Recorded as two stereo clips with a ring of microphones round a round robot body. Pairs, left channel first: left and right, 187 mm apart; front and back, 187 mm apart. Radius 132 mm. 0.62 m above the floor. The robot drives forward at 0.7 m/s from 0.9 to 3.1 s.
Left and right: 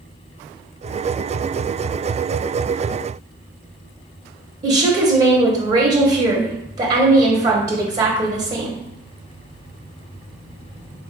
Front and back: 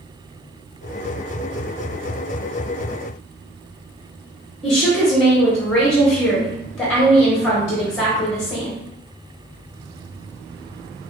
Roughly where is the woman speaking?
Right.